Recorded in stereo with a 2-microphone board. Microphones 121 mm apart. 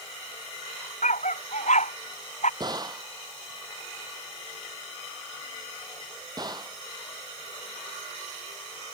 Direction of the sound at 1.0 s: 80° left.